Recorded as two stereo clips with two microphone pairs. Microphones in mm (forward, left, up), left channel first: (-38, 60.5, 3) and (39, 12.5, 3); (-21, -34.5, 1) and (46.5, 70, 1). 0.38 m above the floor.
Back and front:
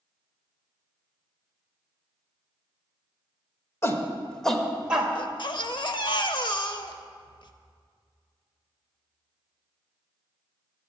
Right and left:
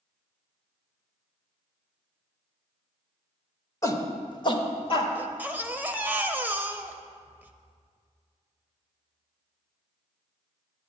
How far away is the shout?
About 1.0 m.